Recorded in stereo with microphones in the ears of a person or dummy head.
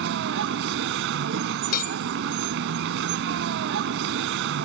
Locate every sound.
0.0 s a vehicle: 70° right (ahead or behind)
1.7 s a bell: 55° left (ahead or behind)